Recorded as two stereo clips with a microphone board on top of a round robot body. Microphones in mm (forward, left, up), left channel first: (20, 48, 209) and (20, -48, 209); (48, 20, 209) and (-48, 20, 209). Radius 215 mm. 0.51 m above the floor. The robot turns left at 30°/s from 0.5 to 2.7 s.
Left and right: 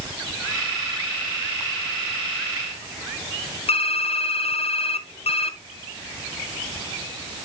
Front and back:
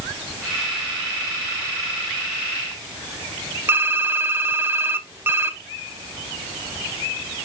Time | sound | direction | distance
3.7 | typing on a keyboard | 110° left | 1.0 m